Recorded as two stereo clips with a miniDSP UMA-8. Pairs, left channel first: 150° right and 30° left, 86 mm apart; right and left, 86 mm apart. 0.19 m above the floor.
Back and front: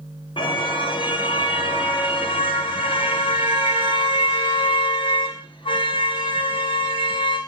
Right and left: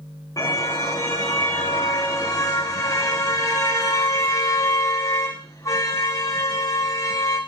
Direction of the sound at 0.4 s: 140° right.